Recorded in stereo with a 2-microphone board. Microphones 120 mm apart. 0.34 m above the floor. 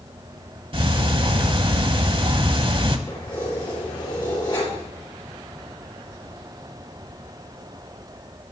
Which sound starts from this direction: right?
Ticking, at 0.7 s.